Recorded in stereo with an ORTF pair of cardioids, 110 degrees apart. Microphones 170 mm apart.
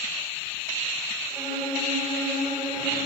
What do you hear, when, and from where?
1.3 s a violin: 25° right, 2.5 m